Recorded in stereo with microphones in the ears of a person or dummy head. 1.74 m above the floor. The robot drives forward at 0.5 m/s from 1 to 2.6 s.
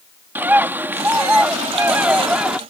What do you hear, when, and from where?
0.3 s a bird: 10° right (ahead or behind); by 2.6 s 5° right (ahead or behind)